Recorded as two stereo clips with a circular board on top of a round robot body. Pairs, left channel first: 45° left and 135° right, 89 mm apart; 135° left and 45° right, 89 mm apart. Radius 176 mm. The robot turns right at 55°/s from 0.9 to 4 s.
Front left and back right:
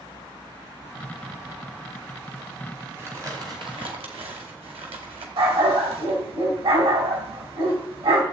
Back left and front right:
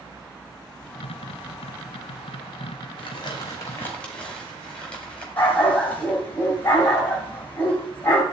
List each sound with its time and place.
3.0 s crumpling: 155° left, 2.5 m; by 5.3 s 145° right, 2.5 m
5.4 s a dog barking: 155° right, 2.5 m